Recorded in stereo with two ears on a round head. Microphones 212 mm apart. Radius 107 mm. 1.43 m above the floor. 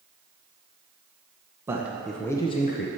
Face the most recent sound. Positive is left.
turn(degrees=45)  # may be behind; listen again after turning